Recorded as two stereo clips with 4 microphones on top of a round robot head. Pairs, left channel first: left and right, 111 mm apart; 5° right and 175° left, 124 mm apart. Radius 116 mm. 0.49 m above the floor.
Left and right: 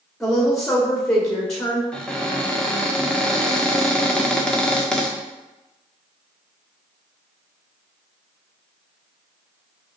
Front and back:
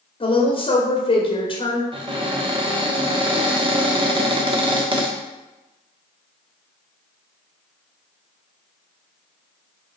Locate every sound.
0.2 s a woman speaking: 5° left, 1.6 m
1.9 s a cupboard door: 170° left, 1.4 m